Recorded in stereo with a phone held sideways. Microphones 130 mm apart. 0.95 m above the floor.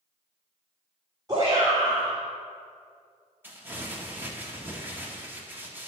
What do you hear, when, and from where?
1.3 s a shout: 30° right (ahead or behind), 2.5 m
3.4 s crumpling: 15° right (ahead or behind), 1.5 m